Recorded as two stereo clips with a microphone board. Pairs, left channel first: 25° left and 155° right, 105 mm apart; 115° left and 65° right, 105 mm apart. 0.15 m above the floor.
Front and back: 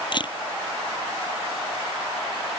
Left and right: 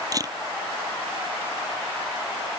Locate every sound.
0.1 s a camera shutter: 15° right